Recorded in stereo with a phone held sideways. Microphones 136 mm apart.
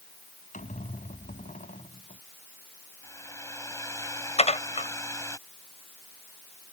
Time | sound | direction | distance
0.5 | a squeak | 70° left (ahead or behind) | ?
3.0 | a hair dryer | 20° left (ahead or behind) | ?
4.4 | dishes clattering | 55° left (ahead or behind) | ?